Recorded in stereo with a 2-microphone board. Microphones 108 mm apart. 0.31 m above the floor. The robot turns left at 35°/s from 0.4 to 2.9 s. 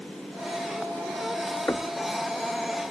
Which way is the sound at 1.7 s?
25° left (ahead or behind).